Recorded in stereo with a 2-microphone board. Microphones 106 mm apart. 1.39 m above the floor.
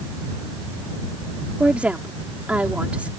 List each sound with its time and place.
1.6 s a woman speaking: 10° right (ahead or behind)